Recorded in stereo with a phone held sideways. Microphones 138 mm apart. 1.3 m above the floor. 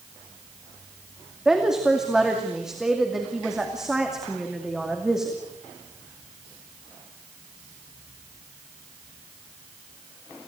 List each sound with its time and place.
1.4 s a woman speaking: 5° right (ahead or behind), 2.5 m